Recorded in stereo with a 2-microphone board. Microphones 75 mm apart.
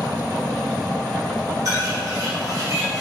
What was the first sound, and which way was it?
A bird, 45° right (ahead or behind).